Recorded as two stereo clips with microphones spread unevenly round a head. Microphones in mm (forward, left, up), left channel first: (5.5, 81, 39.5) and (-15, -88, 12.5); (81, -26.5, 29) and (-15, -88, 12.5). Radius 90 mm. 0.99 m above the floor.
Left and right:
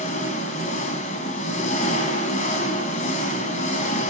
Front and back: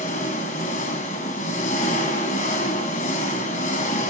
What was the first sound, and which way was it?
An engine running, 35° left.